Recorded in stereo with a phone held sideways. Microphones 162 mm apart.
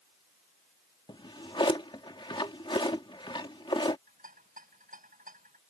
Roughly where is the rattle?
Right.